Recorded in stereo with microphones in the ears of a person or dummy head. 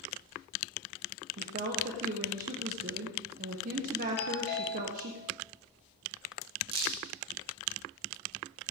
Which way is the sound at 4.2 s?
50° left (ahead or behind).